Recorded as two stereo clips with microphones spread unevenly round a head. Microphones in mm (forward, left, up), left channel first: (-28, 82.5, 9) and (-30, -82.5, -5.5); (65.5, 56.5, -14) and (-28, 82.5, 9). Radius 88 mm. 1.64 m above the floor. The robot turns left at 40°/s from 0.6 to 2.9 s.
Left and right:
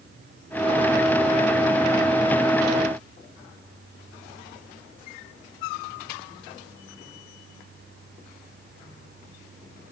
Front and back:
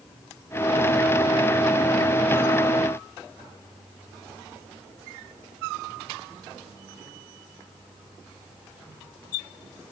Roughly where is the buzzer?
No buzzer in this recording.